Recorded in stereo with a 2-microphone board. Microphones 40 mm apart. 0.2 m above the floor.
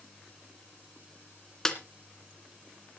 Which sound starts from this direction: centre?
A snare drum, at 1.6 s.